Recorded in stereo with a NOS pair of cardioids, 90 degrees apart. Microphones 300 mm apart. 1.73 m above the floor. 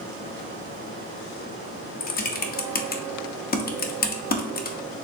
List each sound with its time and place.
2.0 s typing on a keyboard: 30° left, 0.7 m